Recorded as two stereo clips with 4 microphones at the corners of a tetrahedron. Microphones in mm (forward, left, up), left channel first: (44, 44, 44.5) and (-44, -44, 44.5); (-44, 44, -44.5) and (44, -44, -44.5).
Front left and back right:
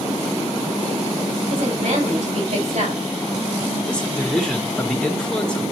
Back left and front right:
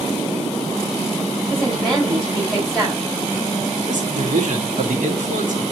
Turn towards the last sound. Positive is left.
turn(degrees=-40)